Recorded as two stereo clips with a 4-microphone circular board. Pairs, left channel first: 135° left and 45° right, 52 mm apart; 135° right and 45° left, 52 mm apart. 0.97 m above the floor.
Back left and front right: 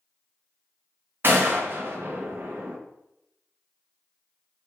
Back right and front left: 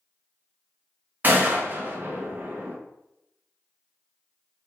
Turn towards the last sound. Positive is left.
turn(degrees=-5)